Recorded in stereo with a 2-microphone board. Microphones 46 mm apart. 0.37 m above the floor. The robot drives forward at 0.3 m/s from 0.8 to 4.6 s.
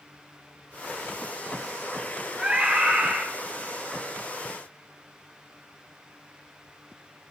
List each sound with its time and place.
2.4 s a scream: 25° right (ahead or behind), 3 m; by 3.2 s 20° right (ahead or behind), 3.5 m